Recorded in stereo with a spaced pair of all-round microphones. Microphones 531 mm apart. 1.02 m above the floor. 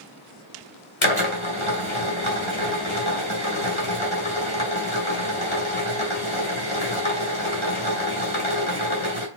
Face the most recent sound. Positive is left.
turn(degrees=60)  # may be behind; listen again after turning